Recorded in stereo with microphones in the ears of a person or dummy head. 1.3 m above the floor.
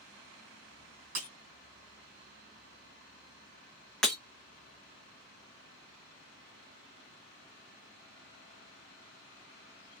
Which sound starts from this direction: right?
Breaking glass, at 1.1 s.